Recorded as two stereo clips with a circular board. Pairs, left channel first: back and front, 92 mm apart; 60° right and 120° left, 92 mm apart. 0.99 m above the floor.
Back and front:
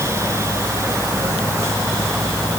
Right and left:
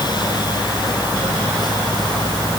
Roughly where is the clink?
No clink in this recording.